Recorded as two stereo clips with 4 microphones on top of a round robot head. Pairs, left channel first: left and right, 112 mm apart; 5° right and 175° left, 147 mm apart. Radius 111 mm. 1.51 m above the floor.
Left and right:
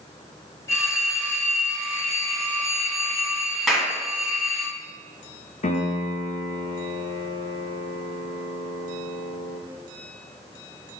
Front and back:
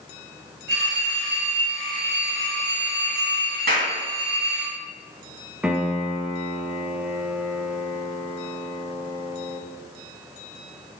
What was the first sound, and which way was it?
A phone ringing, 155° left.